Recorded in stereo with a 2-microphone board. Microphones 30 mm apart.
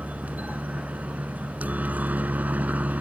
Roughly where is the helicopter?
Right.